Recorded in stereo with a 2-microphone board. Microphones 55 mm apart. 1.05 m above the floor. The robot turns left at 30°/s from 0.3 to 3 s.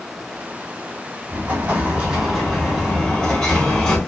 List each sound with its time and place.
1.3 s an explosion: 140° right, 3 m; by 4.0 s 170° left, 3 m